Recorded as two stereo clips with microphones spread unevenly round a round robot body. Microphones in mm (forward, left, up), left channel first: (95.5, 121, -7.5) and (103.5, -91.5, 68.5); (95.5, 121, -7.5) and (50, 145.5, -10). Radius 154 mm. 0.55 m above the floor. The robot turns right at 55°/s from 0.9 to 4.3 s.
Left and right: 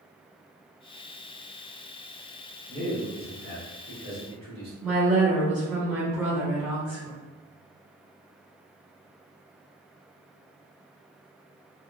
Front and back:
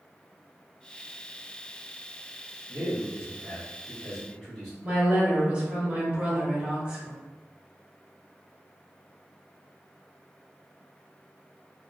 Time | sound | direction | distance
2.7 | a man speaking | 175° left | 1.7 m
4.8 | a woman speaking | 145° left | 1.2 m